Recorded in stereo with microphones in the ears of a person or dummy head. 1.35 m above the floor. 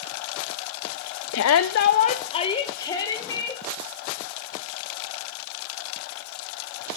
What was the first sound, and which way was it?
A shout, 65° left (ahead or behind).